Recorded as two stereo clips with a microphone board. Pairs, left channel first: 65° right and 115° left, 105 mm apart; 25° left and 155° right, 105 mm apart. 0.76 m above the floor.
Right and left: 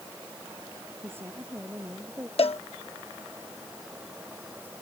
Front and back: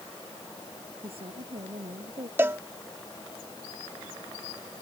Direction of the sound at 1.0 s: Straight behind.